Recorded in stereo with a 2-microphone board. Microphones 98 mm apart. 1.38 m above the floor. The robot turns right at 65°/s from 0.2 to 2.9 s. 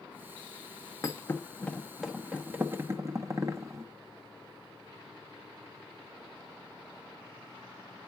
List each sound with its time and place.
1.0 s a thud: 30° left (ahead or behind), 0.8 m; by 3.8 s 30° right (ahead or behind), 0.8 m